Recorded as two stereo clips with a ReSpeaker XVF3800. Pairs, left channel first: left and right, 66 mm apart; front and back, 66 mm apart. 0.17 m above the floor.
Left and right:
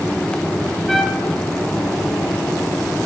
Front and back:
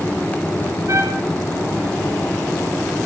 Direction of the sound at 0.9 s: 175° left.